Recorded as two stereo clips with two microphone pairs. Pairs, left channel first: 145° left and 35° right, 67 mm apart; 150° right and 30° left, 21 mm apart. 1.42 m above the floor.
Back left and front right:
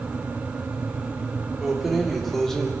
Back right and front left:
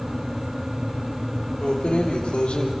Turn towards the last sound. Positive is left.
turn(degrees=-135)